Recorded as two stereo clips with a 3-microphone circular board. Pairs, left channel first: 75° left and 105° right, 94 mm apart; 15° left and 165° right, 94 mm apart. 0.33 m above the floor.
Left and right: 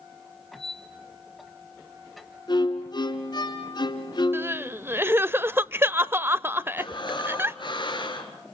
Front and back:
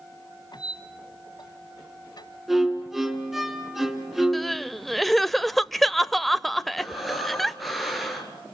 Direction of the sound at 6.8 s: 105° left.